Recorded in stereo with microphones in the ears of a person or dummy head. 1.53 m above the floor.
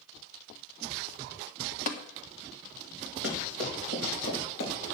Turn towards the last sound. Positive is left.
turn(degrees=75)  # may be behind; listen again after turning